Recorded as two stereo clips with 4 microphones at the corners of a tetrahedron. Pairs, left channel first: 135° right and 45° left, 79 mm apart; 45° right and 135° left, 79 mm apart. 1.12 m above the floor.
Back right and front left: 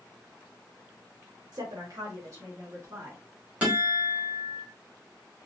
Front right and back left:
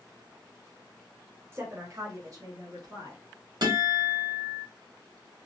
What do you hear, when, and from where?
1.5 s a woman speaking: 75° left, 1.3 m; by 3.2 s 95° left, 2.5 m
3.6 s a guitar: 120° left, 2 m